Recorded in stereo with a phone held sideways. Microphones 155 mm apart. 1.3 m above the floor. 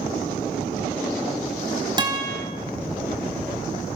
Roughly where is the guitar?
Right.